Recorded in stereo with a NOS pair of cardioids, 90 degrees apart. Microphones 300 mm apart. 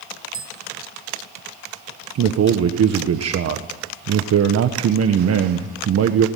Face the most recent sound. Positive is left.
turn(degrees=-55)